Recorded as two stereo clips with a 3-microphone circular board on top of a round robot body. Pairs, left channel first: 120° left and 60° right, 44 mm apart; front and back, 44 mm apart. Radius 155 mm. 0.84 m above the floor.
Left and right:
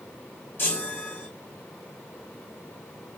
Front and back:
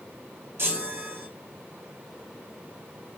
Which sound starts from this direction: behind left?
A chime, at 0.6 s.